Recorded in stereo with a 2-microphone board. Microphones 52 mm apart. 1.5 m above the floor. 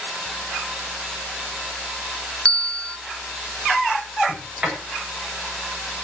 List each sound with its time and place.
2.5 s a bell: 20° left (ahead or behind), 1.2 m
4.3 s a sliding door: 20° right (ahead or behind), 8 m